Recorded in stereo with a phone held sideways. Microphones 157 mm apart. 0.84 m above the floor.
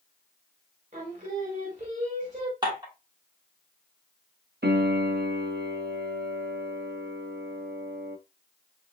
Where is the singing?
50° right (ahead or behind), 1.4 m.